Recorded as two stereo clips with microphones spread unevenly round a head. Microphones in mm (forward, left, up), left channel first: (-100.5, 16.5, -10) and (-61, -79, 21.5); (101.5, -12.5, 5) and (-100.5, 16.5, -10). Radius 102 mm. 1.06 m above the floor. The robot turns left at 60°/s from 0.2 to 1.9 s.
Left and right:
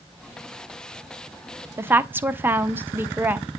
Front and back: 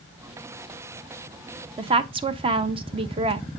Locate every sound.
1.8 s a woman speaking: 145° right, 0.6 m; by 3.5 s 150° right, 0.6 m